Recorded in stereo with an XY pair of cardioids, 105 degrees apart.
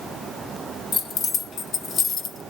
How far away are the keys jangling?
About 1.3 m.